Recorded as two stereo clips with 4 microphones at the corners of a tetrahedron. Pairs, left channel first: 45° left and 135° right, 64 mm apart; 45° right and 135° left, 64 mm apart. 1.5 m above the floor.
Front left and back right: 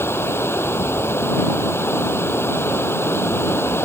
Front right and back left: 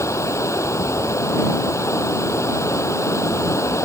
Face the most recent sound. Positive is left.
turn(degrees=-5)